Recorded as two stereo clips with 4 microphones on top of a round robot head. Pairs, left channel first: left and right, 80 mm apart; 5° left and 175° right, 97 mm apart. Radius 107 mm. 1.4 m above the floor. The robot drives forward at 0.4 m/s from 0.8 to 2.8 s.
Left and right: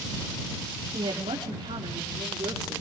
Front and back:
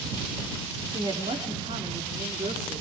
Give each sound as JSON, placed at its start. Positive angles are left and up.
{"t": 0.9, "sound": "a woman speaking", "azimuth_deg": -125, "distance_m": 3.0}